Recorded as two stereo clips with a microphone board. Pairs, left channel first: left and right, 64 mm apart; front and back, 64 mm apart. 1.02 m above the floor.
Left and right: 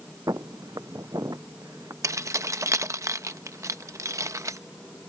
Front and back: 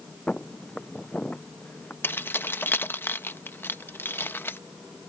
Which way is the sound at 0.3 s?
75° right.